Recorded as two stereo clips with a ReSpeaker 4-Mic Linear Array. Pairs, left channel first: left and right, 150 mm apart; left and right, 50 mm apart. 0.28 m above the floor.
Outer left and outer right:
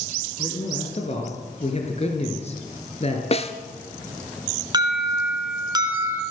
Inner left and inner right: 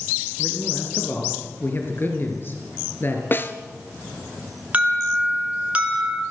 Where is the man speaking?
45° left (ahead or behind), 4 m.